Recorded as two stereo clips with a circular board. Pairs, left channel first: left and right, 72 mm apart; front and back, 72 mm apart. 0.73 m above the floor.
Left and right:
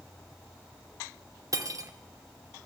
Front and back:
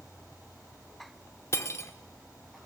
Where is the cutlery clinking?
50° right, 1.0 m.